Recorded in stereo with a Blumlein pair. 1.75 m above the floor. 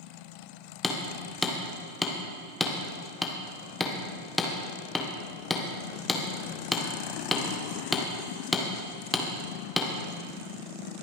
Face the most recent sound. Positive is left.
turn(degrees=5)